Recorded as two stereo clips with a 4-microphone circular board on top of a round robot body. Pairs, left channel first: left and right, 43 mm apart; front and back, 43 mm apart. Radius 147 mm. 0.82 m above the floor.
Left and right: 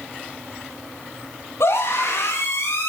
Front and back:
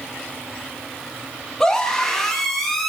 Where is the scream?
80° left, 8 m; by 2.9 s 90° left, 8.5 m.